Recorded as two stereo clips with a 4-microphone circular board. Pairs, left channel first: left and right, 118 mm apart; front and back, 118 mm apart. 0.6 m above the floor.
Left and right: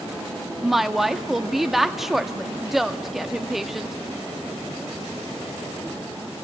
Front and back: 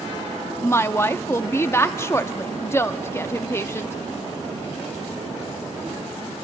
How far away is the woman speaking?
About 0.6 m.